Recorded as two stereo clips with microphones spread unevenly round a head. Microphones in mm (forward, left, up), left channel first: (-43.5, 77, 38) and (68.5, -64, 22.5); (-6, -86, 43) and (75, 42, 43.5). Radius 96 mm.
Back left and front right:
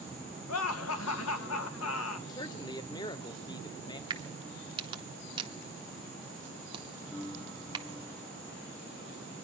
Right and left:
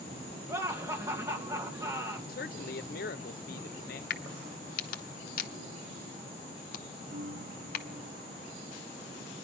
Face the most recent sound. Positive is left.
turn(degrees=55)